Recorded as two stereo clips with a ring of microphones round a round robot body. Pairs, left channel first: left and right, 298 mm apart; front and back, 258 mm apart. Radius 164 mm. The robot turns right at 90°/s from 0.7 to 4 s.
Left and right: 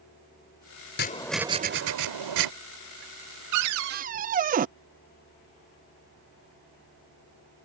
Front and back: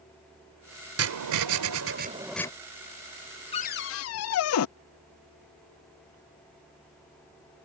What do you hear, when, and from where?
1.0 s writing: 150° left; by 2.5 s 75° right
3.5 s a cupboard door: 70° right; by 4.7 s 25° right